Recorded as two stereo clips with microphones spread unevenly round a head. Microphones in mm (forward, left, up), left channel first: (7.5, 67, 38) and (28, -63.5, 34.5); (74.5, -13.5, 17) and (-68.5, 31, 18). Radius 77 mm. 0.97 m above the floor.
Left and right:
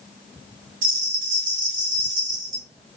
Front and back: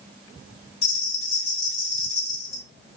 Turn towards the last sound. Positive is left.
turn(degrees=-90)